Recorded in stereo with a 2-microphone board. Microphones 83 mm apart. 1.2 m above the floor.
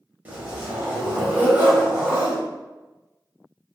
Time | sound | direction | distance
0.2 | a zipper | 20° right (ahead or behind) | 1.0 m